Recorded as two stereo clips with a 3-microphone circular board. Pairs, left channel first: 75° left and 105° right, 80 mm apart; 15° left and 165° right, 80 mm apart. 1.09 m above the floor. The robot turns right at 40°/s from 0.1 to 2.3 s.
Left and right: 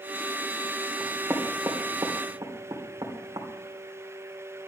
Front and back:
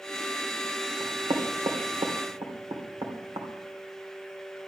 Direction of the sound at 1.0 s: 175° left.